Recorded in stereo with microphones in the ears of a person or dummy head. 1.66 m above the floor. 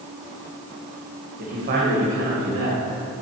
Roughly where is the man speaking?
Right.